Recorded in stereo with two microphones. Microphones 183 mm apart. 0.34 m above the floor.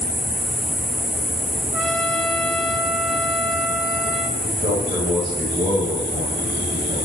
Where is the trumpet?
Centre (ahead or behind), 2 m.